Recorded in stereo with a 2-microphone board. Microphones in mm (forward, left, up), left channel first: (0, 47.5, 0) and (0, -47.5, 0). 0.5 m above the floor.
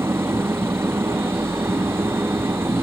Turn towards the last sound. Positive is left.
turn(degrees=-25)  # may be behind; listen again after turning